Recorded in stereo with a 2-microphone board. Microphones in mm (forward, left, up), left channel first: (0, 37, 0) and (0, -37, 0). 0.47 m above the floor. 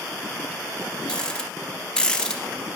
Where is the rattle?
15° left (ahead or behind), 1.4 m.